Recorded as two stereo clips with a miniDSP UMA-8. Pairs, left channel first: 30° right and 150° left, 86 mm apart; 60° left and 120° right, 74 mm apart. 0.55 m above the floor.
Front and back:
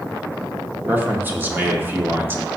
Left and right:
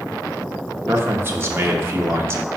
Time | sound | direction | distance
0.9 | a man speaking | 155° right | 0.9 m